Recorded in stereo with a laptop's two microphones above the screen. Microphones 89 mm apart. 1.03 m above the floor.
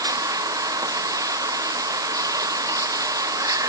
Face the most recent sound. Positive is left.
turn(degrees=-40)  # may be behind; listen again after turning